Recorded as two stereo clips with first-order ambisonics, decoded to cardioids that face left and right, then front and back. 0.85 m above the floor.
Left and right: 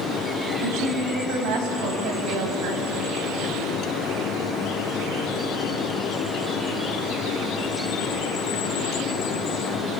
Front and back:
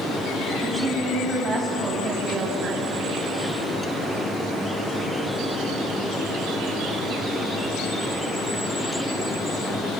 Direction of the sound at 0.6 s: 105° right.